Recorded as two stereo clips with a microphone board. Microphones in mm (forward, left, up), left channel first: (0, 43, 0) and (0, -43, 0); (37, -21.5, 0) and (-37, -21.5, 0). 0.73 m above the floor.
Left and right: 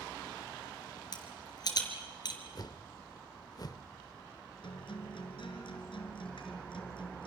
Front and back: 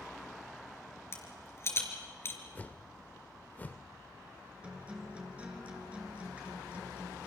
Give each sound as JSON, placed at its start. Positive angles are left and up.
{"t": 1.1, "sound": "a rattle", "azimuth_deg": 55, "distance_m": 3.0}
{"t": 2.5, "sound": "a whoosh", "azimuth_deg": 65, "distance_m": 0.6}
{"t": 4.6, "sound": "a guitar", "azimuth_deg": 105, "distance_m": 3.0}